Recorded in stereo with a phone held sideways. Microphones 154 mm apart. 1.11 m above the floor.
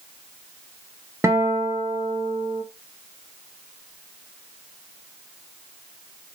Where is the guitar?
15° right (ahead or behind), 0.6 m.